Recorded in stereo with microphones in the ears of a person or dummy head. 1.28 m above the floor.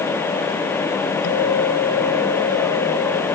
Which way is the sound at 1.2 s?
80° left.